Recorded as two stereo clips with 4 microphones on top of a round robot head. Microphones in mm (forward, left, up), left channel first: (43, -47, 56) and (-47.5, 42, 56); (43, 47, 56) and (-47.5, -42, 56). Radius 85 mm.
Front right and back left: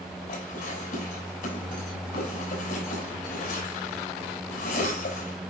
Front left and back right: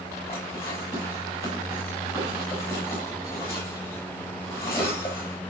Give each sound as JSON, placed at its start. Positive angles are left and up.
{"t": 0.3, "sound": "dishes clattering", "azimuth_deg": -25, "distance_m": 7.5}